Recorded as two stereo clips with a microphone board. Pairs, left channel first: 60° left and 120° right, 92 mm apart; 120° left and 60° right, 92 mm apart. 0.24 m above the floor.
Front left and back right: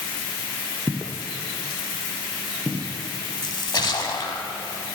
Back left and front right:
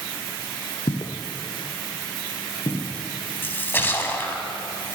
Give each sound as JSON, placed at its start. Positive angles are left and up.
{"t": 0.9, "sound": "footsteps", "azimuth_deg": 160, "distance_m": 0.8}
{"t": 3.4, "sound": "a splash", "azimuth_deg": 60, "distance_m": 0.7}